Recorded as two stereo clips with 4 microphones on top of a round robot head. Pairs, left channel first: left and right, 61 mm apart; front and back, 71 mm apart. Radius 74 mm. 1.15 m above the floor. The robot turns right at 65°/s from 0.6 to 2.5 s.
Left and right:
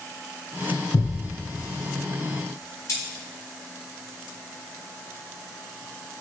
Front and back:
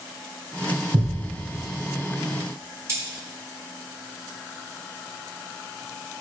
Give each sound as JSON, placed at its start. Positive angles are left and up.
{"t": 0.9, "sound": "a thud", "azimuth_deg": 135, "distance_m": 2.5}
{"t": 2.9, "sound": "cutlery clinking", "azimuth_deg": 130, "distance_m": 4.0}